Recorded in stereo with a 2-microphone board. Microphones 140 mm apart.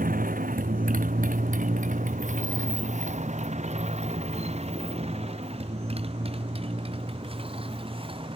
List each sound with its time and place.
0.0 s a motorcycle: 85° right; by 8.4 s 40° right (ahead or behind)